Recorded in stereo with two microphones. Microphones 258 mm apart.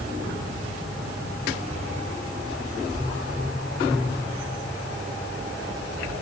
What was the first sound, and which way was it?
Only background noise.